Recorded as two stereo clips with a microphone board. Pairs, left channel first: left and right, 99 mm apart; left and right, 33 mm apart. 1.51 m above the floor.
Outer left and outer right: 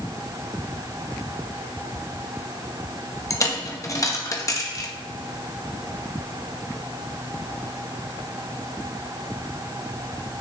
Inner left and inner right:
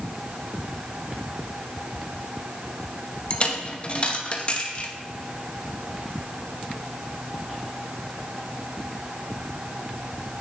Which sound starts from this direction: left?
A dropped coin, at 3.3 s.